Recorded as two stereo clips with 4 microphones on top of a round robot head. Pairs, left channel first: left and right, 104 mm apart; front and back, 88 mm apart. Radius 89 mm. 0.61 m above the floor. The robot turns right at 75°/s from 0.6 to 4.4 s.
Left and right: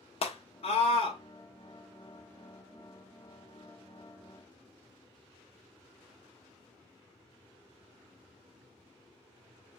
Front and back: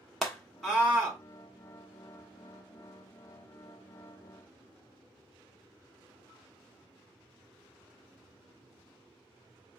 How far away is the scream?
About 1.3 m.